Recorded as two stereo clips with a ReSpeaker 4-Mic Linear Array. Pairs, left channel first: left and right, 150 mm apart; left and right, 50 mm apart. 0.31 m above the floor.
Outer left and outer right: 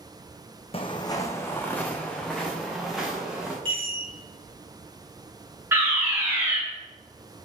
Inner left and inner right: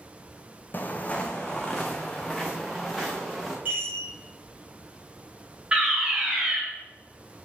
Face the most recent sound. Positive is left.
turn(degrees=-15)  # may be behind; listen again after turning